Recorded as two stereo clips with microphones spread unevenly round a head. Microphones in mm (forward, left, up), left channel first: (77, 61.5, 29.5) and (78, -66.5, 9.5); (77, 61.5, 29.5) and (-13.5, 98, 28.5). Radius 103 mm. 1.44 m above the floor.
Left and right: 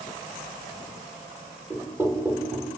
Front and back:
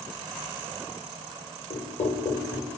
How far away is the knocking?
About 4.5 m.